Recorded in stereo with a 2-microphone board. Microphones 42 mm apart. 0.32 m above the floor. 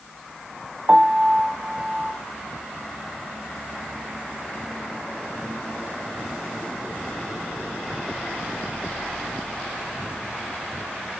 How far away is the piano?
About 0.5 m.